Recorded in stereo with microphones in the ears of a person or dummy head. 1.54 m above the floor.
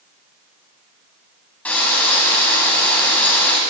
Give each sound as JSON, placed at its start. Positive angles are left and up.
{"t": 1.6, "sound": "frying", "side_deg": 10, "distance_m": 6.0}